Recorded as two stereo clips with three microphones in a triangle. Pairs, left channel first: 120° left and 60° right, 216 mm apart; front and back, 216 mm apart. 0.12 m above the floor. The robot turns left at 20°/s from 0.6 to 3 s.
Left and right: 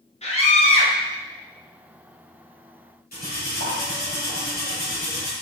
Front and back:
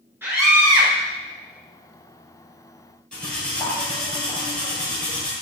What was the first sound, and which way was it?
A scream, 110° left.